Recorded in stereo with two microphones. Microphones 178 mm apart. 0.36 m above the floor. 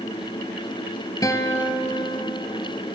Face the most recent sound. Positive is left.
turn(degrees=20)  # may be behind; listen again after turning